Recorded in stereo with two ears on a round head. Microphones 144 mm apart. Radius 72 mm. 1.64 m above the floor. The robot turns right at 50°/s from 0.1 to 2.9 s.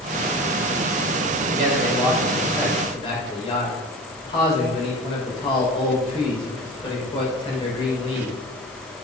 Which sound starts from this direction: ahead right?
A man speaking, at 1.5 s.